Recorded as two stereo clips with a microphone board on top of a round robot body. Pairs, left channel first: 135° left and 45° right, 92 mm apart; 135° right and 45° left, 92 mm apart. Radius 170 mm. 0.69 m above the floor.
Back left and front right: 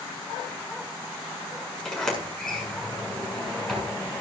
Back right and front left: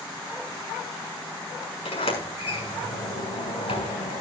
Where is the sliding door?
140° right, 6.5 m.